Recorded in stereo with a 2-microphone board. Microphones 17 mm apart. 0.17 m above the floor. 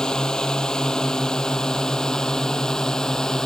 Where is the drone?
40° left (ahead or behind); by 3.5 s 35° left (ahead or behind).